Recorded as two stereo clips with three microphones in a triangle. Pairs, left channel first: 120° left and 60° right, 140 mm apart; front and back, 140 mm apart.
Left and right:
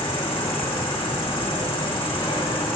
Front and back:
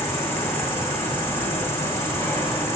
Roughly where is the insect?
Left.